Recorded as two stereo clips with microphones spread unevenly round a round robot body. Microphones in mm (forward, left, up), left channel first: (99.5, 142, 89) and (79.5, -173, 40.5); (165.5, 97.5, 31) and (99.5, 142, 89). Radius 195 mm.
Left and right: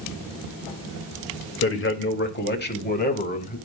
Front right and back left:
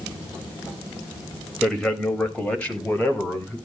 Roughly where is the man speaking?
Ahead left.